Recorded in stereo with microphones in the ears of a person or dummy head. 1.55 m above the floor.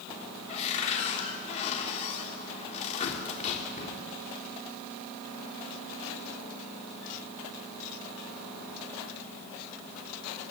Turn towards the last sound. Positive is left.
turn(degrees=35)  # may be behind; listen again after turning